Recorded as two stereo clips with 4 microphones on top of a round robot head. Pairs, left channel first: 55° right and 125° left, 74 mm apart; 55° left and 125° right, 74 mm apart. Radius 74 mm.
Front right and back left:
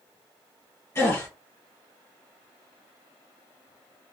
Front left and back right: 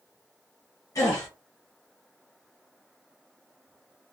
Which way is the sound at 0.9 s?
5° left.